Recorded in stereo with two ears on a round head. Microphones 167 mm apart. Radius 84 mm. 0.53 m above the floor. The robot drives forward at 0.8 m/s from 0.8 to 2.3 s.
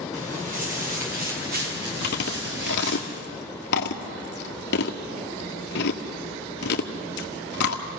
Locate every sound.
0.1 s footsteps: 40° right (ahead or behind), 6 m; by 3.0 s 65° right (ahead or behind), 6 m
2.0 s chewing: 55° left (ahead or behind), 1.9 m; by 7.8 s 60° left (ahead or behind), 1.8 m